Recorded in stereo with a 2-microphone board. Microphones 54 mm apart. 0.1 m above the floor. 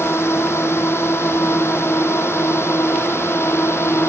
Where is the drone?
55° left (ahead or behind).